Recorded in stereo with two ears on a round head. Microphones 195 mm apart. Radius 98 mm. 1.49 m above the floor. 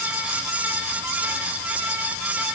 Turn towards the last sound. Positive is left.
No sound to turn to.